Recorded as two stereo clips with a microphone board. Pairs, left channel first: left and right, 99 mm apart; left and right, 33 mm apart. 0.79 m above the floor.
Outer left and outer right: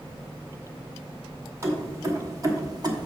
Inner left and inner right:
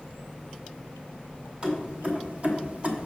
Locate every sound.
1.6 s keys jangling: 30° right (ahead or behind), 2 m; by 3.1 s 45° right (ahead or behind), 0.9 m